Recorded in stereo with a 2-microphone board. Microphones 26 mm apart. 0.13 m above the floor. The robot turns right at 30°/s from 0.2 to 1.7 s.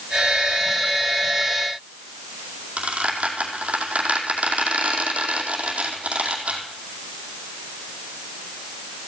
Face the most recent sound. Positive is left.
turn(degrees=-55)  # may be behind; listen again after turning